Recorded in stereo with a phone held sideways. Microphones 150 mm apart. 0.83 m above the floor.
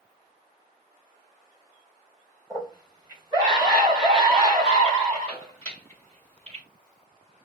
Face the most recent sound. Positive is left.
turn(degrees=-45)  # may be behind; listen again after turning